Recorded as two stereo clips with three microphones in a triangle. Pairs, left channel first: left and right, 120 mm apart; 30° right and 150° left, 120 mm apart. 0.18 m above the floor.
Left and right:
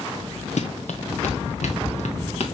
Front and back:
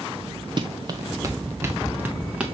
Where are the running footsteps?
105° left, 1.1 m; by 2.5 s 70° left, 1.7 m.